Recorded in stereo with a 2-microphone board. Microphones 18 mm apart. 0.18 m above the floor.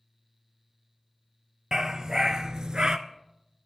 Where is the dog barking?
35° right (ahead or behind), 1.6 m; by 3.0 s 50° right (ahead or behind), 0.9 m.